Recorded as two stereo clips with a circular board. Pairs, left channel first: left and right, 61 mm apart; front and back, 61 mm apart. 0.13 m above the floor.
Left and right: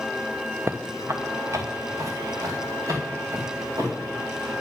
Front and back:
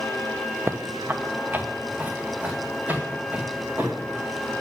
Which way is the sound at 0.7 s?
135° right.